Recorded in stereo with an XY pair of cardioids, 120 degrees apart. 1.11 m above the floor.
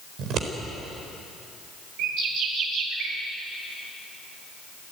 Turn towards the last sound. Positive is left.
turn(degrees=-70)